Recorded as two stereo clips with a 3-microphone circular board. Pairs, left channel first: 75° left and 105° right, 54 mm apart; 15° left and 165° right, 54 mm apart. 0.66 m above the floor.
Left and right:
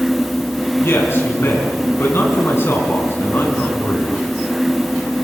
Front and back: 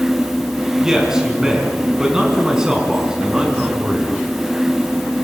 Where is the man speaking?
115° left, 7 m.